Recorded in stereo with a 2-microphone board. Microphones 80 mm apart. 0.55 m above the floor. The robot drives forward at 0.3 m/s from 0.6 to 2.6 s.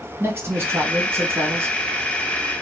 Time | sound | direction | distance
0.2 | a man speaking | 30° right (ahead or behind) | 0.9 m